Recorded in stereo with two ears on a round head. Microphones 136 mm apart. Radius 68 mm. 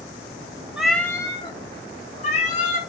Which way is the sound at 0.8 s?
5° right (ahead or behind).